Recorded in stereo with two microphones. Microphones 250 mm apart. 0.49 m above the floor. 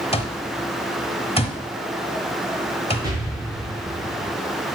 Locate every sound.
0.1 s an alarm clock: 25° left (ahead or behind), 1.0 m
3.0 s an explosion: 15° right (ahead or behind), 4 m